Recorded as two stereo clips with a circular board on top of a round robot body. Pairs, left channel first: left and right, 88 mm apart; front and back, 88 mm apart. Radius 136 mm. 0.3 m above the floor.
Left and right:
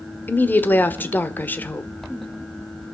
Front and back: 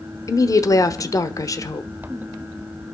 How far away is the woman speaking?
About 1.3 m.